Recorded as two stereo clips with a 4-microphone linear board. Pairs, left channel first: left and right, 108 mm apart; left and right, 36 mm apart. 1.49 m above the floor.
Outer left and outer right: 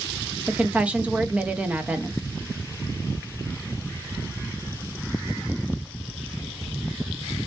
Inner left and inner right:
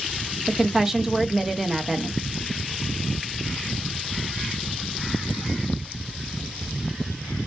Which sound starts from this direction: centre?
A woman speaking, at 0.5 s.